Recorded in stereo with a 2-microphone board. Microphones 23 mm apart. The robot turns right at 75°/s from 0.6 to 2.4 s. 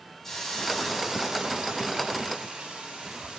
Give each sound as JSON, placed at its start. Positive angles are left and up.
{"t": 0.2, "sound": "a hiss", "azimuth_deg": 165, "distance_m": 1.6}